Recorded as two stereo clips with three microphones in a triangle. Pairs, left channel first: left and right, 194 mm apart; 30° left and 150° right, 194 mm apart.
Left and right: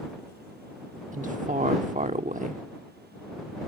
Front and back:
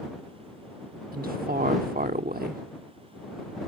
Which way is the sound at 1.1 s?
125° right.